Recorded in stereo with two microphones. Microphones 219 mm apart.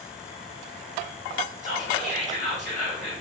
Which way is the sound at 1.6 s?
35° right (ahead or behind).